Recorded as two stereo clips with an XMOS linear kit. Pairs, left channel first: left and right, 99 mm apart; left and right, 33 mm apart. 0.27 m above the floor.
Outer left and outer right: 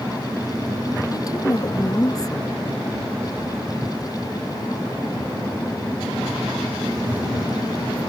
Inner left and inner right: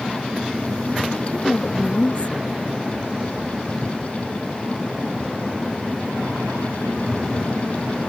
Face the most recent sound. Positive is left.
turn(degrees=35)  # may be behind; listen again after turning